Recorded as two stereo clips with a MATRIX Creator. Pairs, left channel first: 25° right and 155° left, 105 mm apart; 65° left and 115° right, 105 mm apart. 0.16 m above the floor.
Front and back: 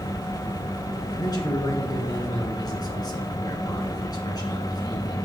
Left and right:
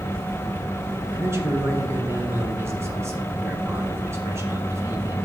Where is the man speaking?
60° right, 2.5 m.